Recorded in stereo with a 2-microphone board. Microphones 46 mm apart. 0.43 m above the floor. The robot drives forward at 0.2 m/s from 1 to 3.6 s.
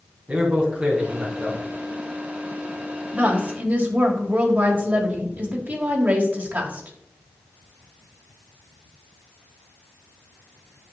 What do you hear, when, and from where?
0.3 s a man speaking: 35° right (ahead or behind), 3.5 m
3.1 s a woman speaking: 40° right (ahead or behind), 2.0 m